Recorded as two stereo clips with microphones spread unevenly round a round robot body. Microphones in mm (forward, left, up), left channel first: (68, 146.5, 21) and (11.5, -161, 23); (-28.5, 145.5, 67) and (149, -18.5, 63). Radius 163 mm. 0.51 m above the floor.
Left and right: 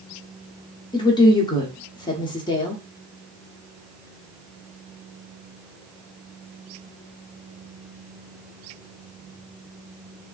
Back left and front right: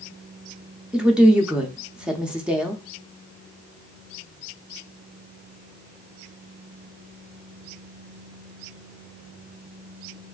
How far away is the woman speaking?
About 0.7 m.